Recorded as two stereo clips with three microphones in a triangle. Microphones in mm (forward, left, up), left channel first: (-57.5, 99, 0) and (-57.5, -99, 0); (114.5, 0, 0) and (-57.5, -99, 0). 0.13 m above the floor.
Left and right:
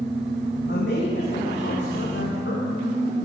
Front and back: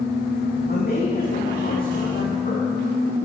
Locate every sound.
0.7 s a man speaking: 65° left, 7 m; by 2.8 s 75° left, 6.5 m